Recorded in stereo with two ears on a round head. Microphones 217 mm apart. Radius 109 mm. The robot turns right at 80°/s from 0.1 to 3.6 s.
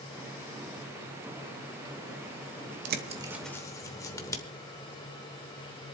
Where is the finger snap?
I don't hear a finger snap.